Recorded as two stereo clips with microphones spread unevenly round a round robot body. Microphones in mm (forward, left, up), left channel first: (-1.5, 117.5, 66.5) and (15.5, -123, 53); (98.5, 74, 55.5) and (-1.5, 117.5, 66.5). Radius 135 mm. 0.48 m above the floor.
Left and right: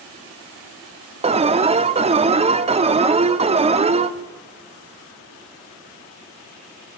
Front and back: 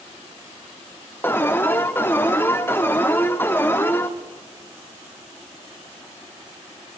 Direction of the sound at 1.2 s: 60° right.